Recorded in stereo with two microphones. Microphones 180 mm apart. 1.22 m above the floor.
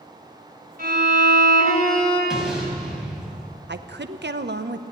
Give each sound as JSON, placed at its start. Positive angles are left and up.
{"t": 0.8, "sound": "a violin", "side_deg": -55, "distance_m": 3.5}
{"t": 2.3, "sound": "an explosion", "side_deg": -5, "distance_m": 3.5}
{"t": 3.7, "sound": "a woman speaking", "side_deg": -75, "distance_m": 0.7}